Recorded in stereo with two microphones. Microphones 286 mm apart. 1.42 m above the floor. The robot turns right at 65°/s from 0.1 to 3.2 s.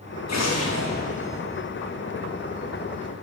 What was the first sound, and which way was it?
An explosion, 100° left.